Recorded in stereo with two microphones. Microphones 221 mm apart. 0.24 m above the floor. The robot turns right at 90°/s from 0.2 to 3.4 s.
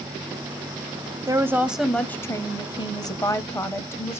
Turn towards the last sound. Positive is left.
turn(degrees=10)  # may be behind; listen again after turning